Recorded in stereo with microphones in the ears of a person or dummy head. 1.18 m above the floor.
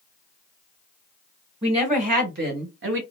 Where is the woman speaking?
25° right (ahead or behind), 1.1 m; by 3.0 s 65° right (ahead or behind), 1.1 m.